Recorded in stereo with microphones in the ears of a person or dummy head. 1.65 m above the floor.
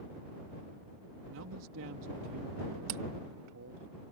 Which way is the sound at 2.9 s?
50° right (ahead or behind).